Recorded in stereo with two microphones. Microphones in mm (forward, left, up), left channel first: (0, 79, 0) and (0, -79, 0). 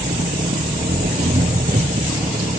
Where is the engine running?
65° right (ahead or behind).